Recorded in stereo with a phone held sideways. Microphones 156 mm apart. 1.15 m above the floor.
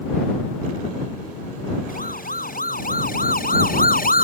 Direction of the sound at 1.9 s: 75° left (ahead or behind).